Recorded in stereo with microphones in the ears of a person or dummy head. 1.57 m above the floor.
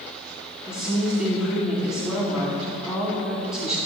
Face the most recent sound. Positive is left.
turn(degrees=-5)  # may be behind; listen again after turning